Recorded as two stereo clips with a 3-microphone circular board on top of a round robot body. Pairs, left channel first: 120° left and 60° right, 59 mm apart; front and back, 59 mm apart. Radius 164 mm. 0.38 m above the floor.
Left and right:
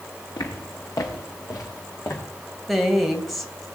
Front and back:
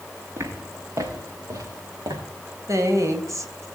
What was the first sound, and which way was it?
Footsteps, 135° left.